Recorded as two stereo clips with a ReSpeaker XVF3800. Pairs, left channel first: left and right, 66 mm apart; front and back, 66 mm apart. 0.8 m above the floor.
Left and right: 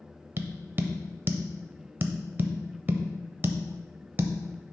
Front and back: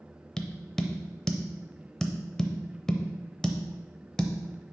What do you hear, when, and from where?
0.4 s tapping: 75° right, 0.6 m